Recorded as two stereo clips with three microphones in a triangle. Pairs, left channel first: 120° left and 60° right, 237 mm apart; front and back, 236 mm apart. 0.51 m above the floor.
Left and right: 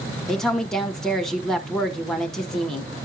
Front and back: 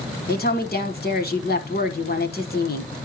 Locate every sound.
0.3 s a woman speaking: 35° left, 1.4 m